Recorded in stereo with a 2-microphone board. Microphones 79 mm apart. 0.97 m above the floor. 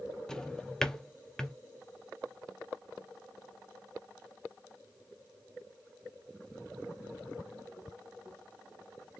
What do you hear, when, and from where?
0.3 s a drawer: 5° left (ahead or behind), 0.5 m